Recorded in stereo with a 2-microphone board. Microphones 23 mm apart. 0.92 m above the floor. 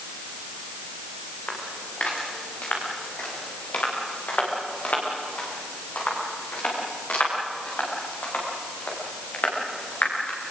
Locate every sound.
1.5 s footsteps: 65° left (ahead or behind), 8 m; by 10.4 s 85° left, 12 m